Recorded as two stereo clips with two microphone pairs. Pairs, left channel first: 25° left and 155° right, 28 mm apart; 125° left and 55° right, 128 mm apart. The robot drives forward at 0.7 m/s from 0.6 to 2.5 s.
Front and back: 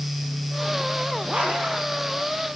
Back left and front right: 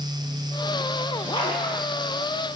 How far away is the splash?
About 6.5 m.